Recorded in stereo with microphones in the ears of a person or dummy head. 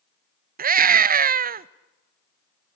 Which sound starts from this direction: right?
A scream, at 0.6 s.